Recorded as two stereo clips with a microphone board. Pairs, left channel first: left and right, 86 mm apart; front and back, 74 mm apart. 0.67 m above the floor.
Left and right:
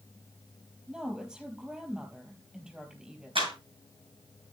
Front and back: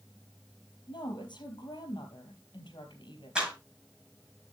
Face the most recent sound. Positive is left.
turn(degrees=-100)